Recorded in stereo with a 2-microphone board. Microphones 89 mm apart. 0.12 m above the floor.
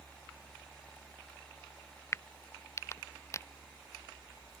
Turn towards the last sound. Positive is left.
turn(degrees=30)  # may be behind; listen again after turning